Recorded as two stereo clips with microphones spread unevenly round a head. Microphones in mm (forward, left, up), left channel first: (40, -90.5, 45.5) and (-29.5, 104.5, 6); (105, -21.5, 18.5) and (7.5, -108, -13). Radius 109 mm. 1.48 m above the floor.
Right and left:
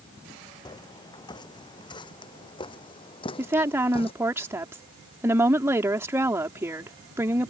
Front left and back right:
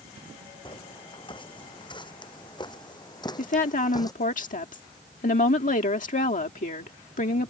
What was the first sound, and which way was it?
Footsteps, 5° right.